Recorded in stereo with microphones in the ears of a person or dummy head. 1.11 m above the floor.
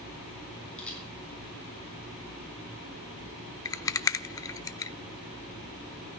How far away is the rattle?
About 0.8 m.